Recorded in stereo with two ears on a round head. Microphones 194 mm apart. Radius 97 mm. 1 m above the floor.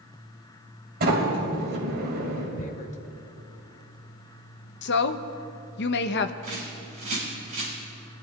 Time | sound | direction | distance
1.0 | a sliding door | 45° right (ahead or behind) | 3 m
2.6 | tearing paper | 35° left (ahead or behind) | 0.7 m
4.8 | a woman speaking | 50° left (ahead or behind) | 0.7 m
6.4 | a bird | 35° right (ahead or behind) | 5.5 m